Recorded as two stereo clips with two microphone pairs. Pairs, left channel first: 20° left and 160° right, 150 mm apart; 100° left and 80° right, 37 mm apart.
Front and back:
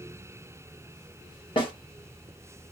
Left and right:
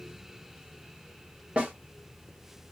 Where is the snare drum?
30° right, 1.1 m.